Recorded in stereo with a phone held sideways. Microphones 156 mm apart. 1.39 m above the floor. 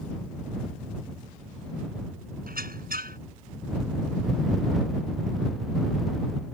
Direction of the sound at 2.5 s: 85° right.